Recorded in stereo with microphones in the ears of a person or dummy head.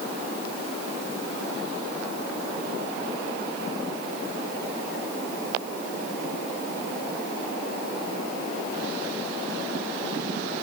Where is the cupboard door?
I don't hear a cupboard door.